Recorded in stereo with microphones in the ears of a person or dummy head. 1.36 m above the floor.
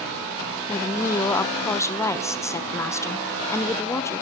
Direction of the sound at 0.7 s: 5° left (ahead or behind).